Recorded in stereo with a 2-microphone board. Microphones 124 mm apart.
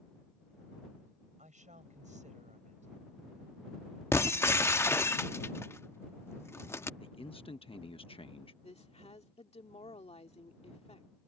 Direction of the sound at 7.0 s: 50° left (ahead or behind).